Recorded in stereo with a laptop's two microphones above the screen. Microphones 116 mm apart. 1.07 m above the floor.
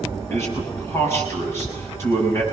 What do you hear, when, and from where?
0.3 s a man speaking: 20° left (ahead or behind), 7 m